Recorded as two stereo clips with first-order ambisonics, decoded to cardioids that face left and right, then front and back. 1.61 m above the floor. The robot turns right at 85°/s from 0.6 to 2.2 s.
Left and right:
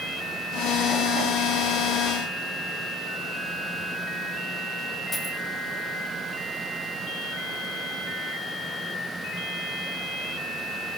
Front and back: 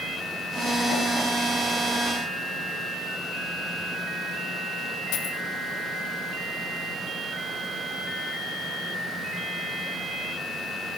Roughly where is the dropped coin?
Ahead.